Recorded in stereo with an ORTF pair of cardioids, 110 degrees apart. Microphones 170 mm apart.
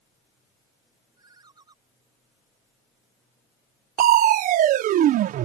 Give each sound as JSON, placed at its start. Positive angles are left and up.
{"t": 1.2, "sound": "a ringtone", "azimuth_deg": -25}
{"t": 4.0, "sound": "crushing", "azimuth_deg": -55}